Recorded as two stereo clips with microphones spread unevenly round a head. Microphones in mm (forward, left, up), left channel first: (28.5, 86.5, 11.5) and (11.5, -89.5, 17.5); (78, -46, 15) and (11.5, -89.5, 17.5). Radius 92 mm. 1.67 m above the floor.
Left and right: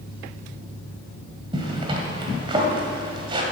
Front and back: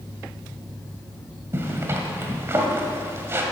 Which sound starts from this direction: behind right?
A zipper, at 1.5 s.